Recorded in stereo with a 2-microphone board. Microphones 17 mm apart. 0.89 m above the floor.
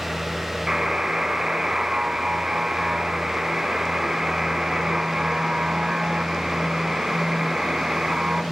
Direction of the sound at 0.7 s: 45° right (ahead or behind).